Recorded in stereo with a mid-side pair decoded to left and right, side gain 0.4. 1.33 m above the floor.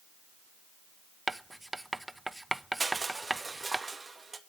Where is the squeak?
No squeak in this recording.